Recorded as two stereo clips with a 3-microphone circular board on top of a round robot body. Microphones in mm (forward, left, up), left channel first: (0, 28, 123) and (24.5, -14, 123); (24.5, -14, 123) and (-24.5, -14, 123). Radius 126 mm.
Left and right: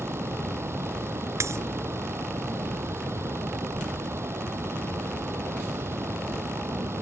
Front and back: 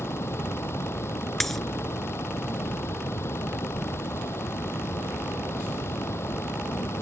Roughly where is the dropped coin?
Right.